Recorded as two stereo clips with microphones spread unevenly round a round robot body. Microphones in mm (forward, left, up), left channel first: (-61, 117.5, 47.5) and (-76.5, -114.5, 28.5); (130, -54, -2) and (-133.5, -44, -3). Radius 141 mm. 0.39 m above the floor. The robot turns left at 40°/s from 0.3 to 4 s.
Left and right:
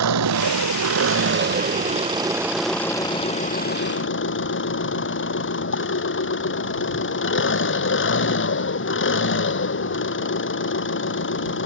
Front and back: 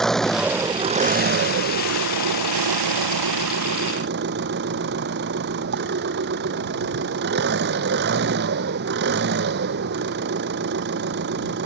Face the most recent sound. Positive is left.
turn(degrees=120)